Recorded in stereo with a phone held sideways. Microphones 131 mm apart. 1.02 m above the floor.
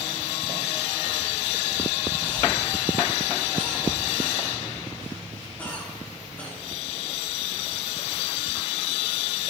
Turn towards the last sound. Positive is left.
turn(degrees=10)  # may be behind; listen again after turning